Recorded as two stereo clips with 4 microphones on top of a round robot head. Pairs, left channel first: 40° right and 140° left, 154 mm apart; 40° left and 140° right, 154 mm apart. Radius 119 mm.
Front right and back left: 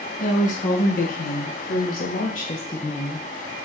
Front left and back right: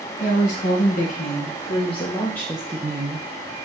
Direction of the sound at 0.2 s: Straight ahead.